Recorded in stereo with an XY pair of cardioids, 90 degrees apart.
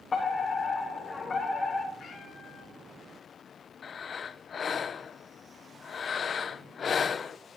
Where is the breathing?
45° left, 0.6 m.